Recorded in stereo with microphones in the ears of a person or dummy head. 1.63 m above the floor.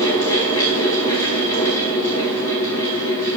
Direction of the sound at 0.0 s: 15° left (ahead or behind).